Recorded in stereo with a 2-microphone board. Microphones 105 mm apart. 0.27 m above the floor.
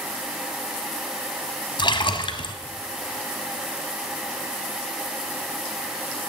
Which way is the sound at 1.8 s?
50° left (ahead or behind).